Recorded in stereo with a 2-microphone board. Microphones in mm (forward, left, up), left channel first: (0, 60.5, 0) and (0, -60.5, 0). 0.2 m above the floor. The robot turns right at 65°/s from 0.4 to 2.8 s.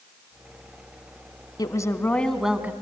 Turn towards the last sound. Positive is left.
turn(degrees=-155)